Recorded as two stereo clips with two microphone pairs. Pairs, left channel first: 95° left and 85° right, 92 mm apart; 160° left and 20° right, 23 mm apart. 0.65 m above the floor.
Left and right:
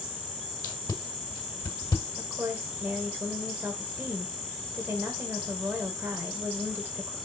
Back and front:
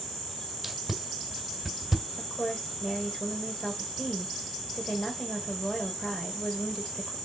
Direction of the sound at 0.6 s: 60° left.